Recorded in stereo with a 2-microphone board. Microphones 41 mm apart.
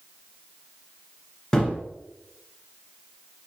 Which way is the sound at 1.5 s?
20° left (ahead or behind).